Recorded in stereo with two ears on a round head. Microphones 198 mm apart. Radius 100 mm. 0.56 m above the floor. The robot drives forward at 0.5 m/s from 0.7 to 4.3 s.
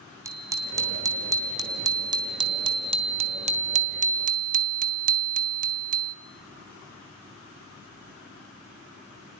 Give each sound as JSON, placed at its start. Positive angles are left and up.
{"t": 0.2, "sound": "a bicycle bell", "side_deg": -15, "distance_m": 2.5}